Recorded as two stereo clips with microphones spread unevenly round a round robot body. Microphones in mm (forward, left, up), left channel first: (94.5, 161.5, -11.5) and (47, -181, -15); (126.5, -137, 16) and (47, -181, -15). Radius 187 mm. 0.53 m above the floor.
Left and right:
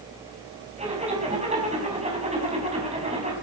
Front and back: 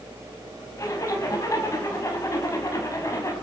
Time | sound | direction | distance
0.8 | a zipper | 25° right | 5 m